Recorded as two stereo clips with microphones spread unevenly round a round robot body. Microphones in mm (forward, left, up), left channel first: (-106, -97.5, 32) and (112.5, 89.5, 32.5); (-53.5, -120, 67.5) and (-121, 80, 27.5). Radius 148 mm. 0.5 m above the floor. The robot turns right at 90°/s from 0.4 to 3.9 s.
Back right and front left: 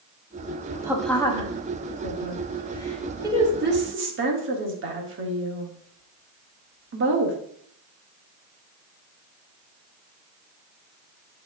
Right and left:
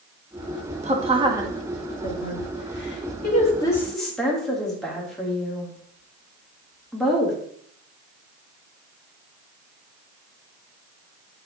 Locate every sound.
0.8 s a woman speaking: 115° left, 1.5 m; by 7.4 s 30° left, 1.5 m